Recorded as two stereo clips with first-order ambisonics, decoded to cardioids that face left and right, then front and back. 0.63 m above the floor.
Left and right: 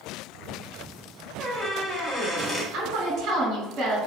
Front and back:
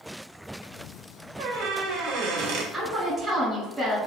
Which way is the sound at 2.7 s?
85° right.